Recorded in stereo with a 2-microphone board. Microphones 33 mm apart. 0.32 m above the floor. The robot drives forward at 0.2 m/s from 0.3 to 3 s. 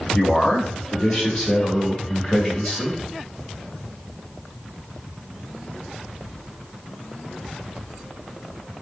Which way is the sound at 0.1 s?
20° left (ahead or behind).